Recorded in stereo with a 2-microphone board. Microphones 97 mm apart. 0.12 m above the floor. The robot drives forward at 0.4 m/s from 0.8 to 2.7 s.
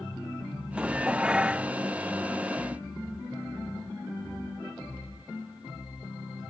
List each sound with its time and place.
0.8 s dishes clattering: 10° right (ahead or behind)